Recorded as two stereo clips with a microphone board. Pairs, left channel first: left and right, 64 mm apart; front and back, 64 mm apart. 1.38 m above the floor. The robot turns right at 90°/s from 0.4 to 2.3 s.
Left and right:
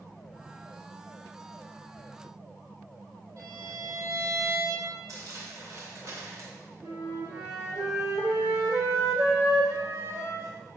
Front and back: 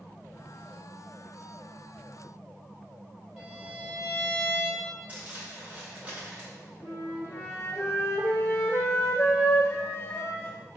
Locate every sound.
3.4 s a violin: 110° right, 2.5 m
5.1 s crumpling: 115° right, 2.0 m
6.8 s a flute: 50° right, 1.9 m